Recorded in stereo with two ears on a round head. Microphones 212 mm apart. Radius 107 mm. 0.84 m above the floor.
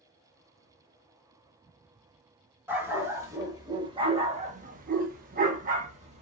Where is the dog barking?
10° right (ahead or behind), 1.3 m; by 6.2 s 30° right (ahead or behind), 0.8 m.